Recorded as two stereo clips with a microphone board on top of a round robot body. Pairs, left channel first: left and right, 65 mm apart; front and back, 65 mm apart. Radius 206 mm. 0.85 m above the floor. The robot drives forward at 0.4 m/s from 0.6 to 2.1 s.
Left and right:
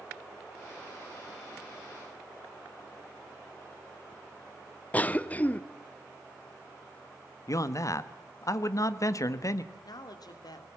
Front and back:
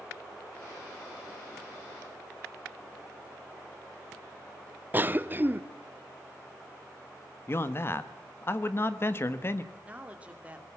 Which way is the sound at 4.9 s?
140° left.